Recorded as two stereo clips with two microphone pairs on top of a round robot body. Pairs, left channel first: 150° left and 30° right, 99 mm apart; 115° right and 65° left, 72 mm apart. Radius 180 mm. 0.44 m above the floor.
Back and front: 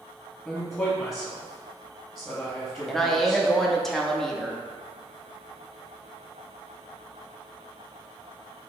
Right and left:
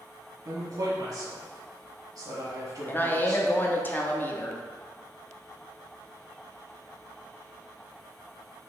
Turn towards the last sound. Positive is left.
turn(degrees=-130)